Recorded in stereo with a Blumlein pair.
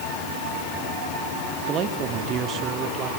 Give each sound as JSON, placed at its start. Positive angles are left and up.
{"t": 1.7, "sound": "a man speaking", "azimuth_deg": -35, "distance_m": 1.8}